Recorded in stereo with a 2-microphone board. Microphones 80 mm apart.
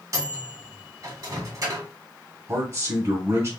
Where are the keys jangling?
No keys jangling in this recording.